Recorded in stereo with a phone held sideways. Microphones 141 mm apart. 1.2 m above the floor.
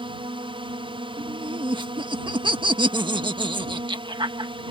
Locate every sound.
0.0 s a drone: 40° right (ahead or behind)
1.2 s laughter: 35° right (ahead or behind)